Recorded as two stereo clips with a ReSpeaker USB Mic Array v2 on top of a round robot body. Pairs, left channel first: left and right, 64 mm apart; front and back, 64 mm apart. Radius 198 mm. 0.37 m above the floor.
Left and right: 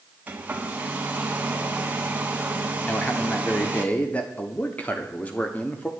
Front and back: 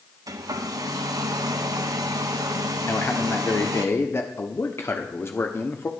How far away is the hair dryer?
About 0.8 m.